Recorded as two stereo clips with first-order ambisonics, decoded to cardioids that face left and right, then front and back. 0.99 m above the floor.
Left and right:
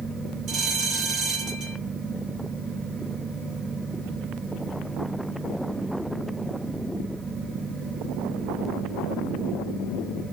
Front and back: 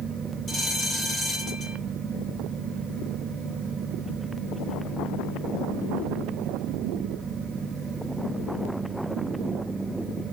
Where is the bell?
50° right, 1.8 m.